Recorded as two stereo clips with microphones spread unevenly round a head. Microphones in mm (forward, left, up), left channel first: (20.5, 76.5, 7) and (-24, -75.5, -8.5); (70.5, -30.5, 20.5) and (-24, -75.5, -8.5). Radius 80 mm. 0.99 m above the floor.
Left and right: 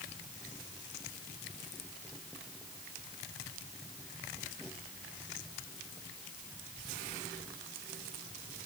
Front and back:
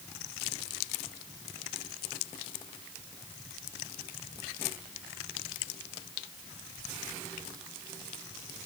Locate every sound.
Only background noise.